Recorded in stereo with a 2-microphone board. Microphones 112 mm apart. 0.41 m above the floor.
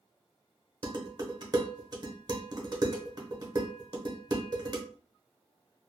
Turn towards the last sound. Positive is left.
turn(degrees=-40)  # may be behind; listen again after turning